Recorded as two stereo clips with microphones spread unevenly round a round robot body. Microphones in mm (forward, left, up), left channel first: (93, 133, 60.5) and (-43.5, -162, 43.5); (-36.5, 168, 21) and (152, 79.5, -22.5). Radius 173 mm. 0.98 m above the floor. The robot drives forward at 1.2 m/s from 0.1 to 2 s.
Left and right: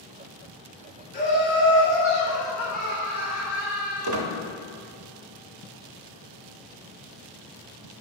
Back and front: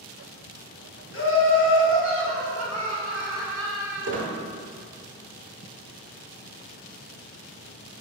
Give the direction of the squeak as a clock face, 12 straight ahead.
3 o'clock.